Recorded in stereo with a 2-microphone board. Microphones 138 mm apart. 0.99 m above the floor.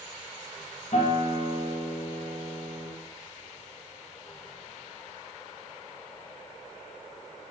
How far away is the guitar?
About 1.6 m.